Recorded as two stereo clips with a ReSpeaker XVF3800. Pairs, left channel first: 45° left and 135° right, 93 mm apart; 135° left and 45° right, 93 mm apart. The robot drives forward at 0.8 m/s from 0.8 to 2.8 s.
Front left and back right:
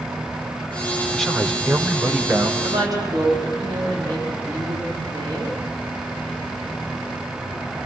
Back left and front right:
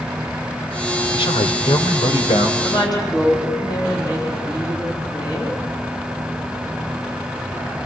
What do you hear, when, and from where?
1.1 s a man speaking: 130° left, 1.5 m; by 2.5 s 150° left, 2.5 m
2.6 s a woman speaking: straight behind, 3.5 m